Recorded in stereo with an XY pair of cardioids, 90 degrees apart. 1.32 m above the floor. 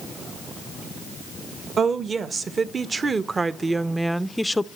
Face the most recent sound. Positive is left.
turn(degrees=20)